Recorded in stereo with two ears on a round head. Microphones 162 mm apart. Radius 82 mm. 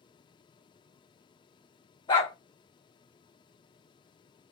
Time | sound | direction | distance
2.1 | a dog barking | 25° left (ahead or behind) | 1.2 m